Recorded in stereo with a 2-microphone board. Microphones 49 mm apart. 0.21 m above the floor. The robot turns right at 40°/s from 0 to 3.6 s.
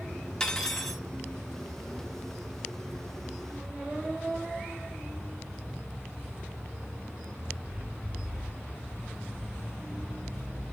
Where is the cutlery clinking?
15° left (ahead or behind), 0.6 m; by 1.0 s 5° left (ahead or behind), 0.6 m.